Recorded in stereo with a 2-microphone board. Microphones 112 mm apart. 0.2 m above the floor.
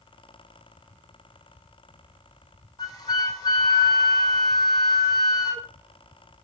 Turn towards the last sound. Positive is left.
turn(degrees=35)  # may be behind; listen again after turning